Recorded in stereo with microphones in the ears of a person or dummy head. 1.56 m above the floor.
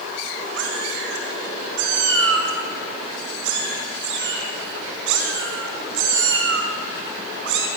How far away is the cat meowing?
About 5 m.